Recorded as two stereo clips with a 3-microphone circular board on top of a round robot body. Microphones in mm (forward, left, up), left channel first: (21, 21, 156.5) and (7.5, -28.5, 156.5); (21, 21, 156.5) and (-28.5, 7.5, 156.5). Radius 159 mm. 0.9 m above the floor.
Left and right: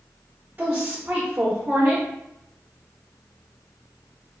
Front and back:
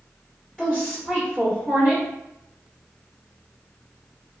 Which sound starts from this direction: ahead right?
A woman speaking, at 0.6 s.